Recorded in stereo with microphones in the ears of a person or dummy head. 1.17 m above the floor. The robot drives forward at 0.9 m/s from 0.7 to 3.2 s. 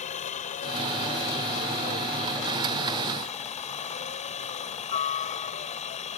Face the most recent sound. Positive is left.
turn(degrees=30)  # may be behind; listen again after turning